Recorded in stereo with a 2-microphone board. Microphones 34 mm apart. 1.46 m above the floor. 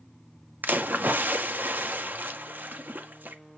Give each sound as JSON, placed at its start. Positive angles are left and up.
{"t": 0.6, "sound": "a splash", "side_deg": -60, "distance_m": 1.8}